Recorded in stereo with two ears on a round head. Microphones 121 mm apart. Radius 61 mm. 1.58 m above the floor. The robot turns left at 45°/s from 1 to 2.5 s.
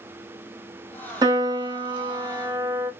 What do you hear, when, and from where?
1.2 s a piano: 25° right (ahead or behind), 1.0 m; by 2.9 s 20° right (ahead or behind), 1.0 m